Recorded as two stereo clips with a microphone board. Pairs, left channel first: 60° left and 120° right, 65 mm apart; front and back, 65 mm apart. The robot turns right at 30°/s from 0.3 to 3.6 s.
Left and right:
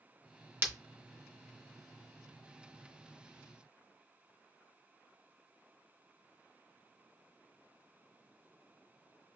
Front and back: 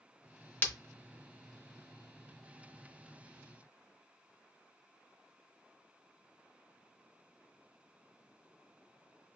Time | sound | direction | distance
0.6 | breaking glass | 60° right | 0.8 m